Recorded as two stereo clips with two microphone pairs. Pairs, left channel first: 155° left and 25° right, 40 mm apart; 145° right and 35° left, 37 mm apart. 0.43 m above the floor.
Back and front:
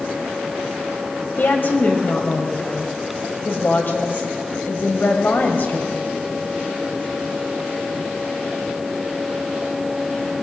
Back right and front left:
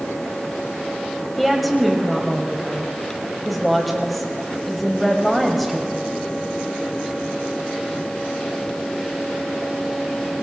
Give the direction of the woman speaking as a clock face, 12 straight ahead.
8 o'clock.